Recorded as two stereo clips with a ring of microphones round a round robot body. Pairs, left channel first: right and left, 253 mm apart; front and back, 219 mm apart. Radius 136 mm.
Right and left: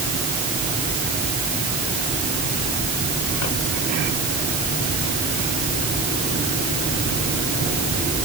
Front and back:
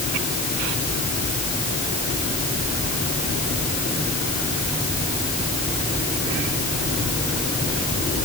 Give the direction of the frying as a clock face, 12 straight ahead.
No frying in this recording.